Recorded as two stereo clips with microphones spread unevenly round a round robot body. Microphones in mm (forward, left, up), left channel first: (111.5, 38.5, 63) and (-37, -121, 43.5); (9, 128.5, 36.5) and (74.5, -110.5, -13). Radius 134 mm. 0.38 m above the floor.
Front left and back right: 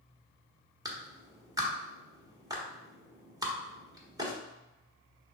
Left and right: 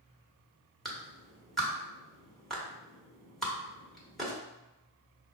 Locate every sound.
0.8 s a clap: 135° right, 1.2 m